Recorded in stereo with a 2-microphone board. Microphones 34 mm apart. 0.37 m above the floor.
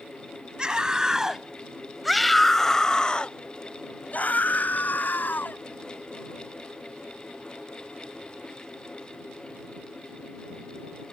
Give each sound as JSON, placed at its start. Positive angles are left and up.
{"t": 0.6, "sound": "a scream", "side_deg": -25}